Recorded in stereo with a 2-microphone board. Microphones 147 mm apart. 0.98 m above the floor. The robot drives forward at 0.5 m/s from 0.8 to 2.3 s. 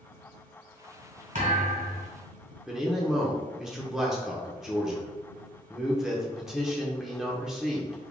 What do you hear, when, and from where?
1.4 s a thud: 60° right (ahead or behind), 2.0 m; by 2.1 s 65° right (ahead or behind), 1.9 m
2.7 s a man speaking: 5° right (ahead or behind), 0.7 m